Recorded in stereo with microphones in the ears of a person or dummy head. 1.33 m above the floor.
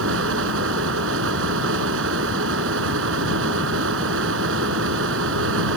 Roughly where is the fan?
Right.